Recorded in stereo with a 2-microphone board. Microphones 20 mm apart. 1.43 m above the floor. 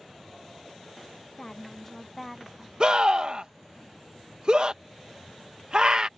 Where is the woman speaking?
25° left (ahead or behind); by 2.7 s 15° right (ahead or behind).